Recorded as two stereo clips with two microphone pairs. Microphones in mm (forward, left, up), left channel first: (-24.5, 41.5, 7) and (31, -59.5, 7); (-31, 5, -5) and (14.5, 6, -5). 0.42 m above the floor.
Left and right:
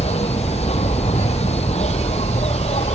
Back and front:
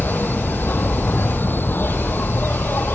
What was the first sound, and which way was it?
An insect, 140° left.